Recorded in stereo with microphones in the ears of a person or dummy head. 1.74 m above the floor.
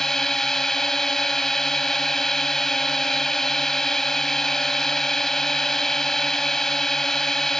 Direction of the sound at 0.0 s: Centre (ahead or behind).